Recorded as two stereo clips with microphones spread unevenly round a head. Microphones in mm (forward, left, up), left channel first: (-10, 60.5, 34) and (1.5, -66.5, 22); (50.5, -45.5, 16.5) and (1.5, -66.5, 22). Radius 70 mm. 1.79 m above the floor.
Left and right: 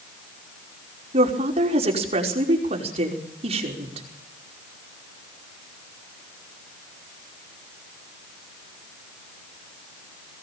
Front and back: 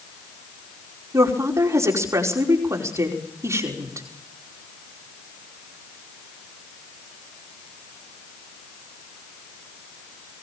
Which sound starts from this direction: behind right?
A woman speaking, at 1.1 s.